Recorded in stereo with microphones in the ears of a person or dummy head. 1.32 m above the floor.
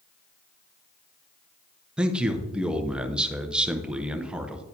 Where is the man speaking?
5° right (ahead or behind), 0.7 m.